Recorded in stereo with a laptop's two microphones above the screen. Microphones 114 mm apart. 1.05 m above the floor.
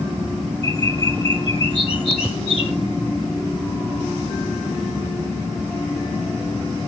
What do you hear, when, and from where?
0.6 s a bird: 55° left (ahead or behind), 8 m